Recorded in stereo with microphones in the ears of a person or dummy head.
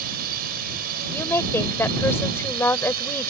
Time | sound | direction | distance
0.0 | a drone | 50° right (ahead or behind) | ?
1.1 | a woman speaking | 10° left (ahead or behind) | ?